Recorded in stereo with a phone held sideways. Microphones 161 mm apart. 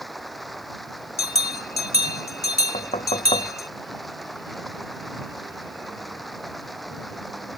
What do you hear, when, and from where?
0.0 s running water: centre (ahead or behind)
1.2 s a bell: 75° left (ahead or behind)
2.7 s knocking: 40° left (ahead or behind)